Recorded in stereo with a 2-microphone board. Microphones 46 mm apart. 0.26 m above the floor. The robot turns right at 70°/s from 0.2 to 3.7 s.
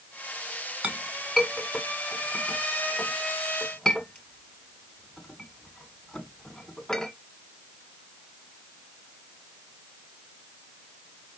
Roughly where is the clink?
Right.